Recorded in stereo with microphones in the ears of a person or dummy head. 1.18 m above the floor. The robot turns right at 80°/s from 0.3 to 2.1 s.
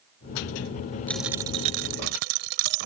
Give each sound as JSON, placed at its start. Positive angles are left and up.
{"t": 1.1, "sound": "a dropped coin", "azimuth_deg": 175}